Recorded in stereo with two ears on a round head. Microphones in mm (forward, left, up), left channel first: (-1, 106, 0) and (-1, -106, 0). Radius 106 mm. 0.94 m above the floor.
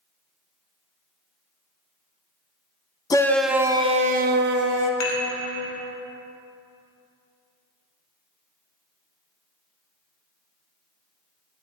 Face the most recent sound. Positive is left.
turn(degrees=75)  # may be behind; listen again after turning